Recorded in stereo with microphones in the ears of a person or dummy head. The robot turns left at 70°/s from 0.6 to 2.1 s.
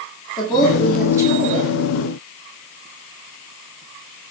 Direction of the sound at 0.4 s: 25° left.